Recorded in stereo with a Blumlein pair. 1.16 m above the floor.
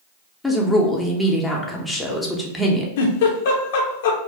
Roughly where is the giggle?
Ahead left.